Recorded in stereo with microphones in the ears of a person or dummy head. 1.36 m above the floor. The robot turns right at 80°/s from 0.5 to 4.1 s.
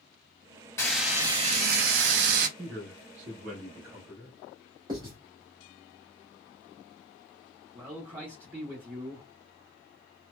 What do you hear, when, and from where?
0.8 s frying: 165° left, 0.6 m; by 2.5 s 60° right, 0.6 m
2.6 s a man speaking: 130° right, 1.1 m; by 4.3 s 5° right, 1.1 m
4.9 s writing: 25° right (ahead or behind), 1.3 m
7.7 s a man speaking: 30° right (ahead or behind), 0.9 m